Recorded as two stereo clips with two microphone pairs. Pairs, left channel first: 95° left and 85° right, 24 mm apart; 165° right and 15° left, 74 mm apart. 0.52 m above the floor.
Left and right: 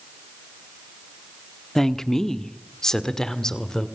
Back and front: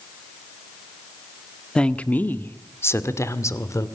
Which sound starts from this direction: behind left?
A woman speaking, at 1.8 s.